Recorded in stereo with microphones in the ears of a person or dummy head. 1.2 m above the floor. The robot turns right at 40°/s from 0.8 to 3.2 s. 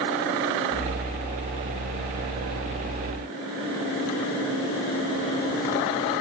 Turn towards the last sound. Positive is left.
No sound to turn to.